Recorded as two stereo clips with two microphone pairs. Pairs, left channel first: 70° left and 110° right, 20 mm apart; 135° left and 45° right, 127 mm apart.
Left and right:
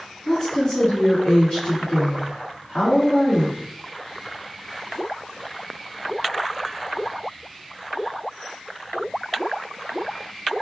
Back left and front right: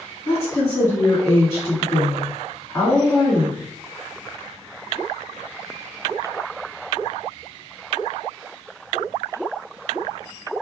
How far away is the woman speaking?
About 2.0 m.